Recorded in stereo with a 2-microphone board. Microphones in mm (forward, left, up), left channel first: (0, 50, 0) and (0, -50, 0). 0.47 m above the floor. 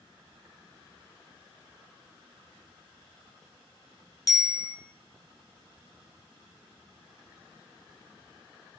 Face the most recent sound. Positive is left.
turn(degrees=35)  # may be behind; listen again after turning